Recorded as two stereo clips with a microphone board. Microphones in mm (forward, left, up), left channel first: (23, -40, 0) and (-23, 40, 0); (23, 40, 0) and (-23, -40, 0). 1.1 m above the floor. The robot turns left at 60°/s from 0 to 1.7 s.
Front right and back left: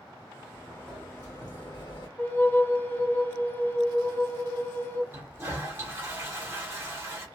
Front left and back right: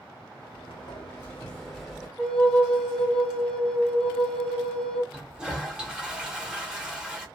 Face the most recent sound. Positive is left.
turn(degrees=160)